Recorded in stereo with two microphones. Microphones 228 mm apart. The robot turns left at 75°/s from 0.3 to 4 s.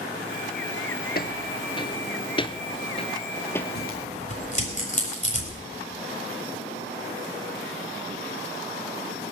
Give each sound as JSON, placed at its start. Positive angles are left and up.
{"t": 1.1, "sound": "footsteps", "side_deg": 45, "distance_m": 1.0}
{"t": 3.8, "sound": "tearing paper", "side_deg": 50, "distance_m": 4.5}